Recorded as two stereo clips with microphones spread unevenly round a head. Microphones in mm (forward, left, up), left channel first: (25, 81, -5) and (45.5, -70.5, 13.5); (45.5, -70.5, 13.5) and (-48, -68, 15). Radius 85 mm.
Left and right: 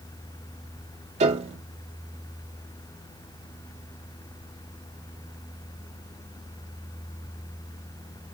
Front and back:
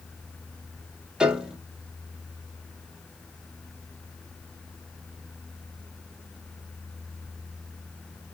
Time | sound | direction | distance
1.2 | a piano | 105° right | 0.6 m